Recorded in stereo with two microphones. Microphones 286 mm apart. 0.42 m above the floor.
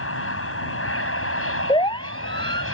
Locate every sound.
0.0 s an aircraft: 45° left (ahead or behind)
1.7 s a siren: 15° left (ahead or behind)